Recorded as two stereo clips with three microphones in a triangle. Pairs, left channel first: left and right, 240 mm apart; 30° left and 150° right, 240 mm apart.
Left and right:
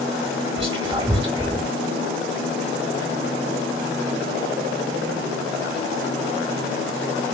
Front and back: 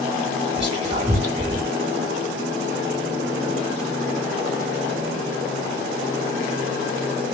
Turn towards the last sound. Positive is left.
turn(degrees=-130)